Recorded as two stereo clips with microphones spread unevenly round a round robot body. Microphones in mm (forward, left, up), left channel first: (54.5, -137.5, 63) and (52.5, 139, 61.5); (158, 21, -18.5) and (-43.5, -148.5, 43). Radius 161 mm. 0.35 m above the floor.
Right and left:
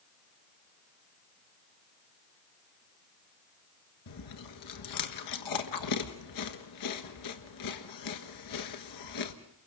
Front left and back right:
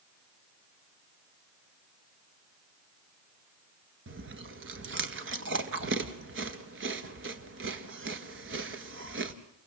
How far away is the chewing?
About 1.5 m.